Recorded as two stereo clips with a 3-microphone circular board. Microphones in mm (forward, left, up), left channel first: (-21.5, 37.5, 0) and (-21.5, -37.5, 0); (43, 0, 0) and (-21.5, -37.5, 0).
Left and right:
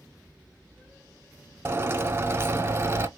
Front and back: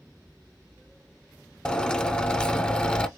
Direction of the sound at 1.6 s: 45° right.